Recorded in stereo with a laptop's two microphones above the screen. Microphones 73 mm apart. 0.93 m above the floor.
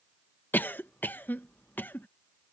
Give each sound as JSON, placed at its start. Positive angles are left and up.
{"t": 0.5, "sound": "a cough", "side_deg": 30}